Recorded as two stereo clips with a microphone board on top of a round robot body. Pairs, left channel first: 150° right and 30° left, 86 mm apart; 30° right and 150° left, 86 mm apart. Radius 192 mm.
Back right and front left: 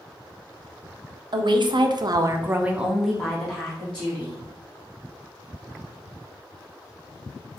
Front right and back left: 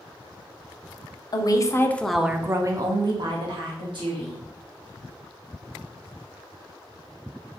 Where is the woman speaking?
5° left, 0.7 m; by 4.4 s 135° left, 1.4 m.